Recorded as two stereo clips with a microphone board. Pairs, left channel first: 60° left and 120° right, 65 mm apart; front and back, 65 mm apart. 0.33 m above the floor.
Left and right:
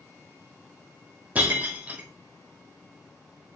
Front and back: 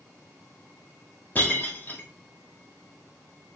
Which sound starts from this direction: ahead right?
Breaking glass, at 1.4 s.